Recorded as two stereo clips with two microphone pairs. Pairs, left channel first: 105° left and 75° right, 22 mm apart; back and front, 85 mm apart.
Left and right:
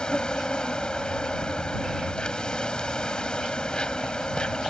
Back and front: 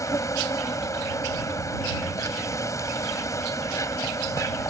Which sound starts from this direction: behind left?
An insect, at 0.0 s.